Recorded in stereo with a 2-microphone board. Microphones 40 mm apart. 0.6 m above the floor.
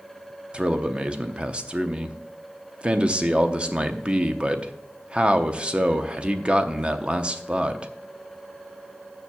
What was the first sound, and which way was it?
A man speaking, 25° right (ahead or behind).